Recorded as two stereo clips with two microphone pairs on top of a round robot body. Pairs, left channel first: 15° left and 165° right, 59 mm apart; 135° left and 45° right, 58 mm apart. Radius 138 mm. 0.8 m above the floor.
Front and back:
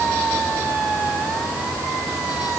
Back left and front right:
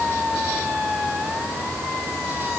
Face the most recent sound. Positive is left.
No sound to turn to.